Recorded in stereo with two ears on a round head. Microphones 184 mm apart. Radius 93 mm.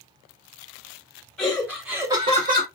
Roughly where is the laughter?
Centre.